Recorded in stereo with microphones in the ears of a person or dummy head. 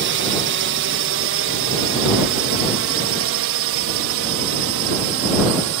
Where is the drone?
60° right (ahead or behind); by 5.8 s 70° right (ahead or behind).